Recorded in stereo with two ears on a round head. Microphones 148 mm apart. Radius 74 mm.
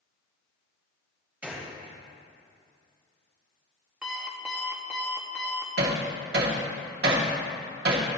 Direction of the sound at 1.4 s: 10° right (ahead or behind).